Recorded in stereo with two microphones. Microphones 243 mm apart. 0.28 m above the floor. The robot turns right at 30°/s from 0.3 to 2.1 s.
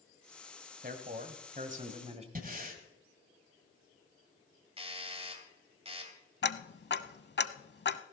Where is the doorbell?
25° right (ahead or behind), 2 m.